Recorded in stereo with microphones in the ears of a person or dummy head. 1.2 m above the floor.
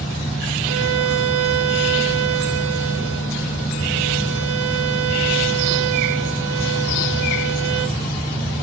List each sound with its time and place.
0.6 s a violin: 85° right, 1.6 m